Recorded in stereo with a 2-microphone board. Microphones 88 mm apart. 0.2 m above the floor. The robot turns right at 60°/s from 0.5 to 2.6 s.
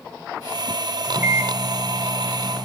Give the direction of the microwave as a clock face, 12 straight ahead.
3 o'clock.